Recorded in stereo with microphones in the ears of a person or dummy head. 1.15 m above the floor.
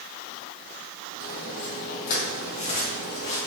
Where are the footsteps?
45° left (ahead or behind), 2 m; by 3.4 s 30° left (ahead or behind), 3.5 m.